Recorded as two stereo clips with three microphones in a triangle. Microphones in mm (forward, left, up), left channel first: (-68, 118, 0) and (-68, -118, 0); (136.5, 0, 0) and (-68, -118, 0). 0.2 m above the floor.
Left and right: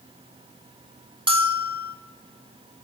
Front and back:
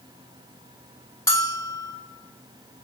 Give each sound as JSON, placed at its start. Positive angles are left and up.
{"t": 1.3, "sound": "a bell", "azimuth_deg": -40, "distance_m": 0.9}